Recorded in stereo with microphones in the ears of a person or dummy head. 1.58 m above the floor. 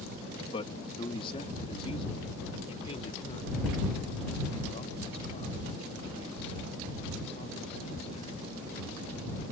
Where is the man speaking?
30° left (ahead or behind); by 8.8 s 35° left (ahead or behind).